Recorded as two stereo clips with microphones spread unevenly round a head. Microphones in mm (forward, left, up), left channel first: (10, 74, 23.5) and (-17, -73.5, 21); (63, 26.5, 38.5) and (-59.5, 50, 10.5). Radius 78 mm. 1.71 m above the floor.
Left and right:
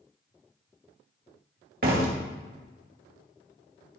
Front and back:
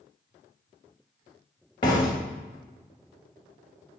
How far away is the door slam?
About 2.0 m.